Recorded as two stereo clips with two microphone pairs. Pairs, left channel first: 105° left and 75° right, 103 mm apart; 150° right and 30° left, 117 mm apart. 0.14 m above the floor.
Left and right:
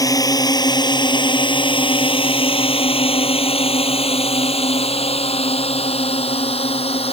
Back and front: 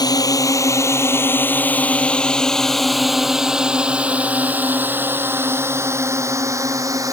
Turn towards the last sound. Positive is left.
turn(degrees=95)